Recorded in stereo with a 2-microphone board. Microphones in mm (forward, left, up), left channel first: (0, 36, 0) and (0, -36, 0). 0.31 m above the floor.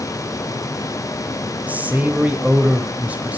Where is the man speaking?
20° right (ahead or behind), 1.1 m.